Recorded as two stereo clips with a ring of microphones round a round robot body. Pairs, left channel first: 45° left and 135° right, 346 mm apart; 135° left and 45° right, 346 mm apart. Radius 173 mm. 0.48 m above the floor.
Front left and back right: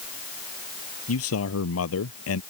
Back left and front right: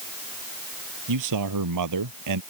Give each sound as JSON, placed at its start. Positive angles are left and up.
{"t": 1.1, "sound": "a man speaking", "azimuth_deg": -5}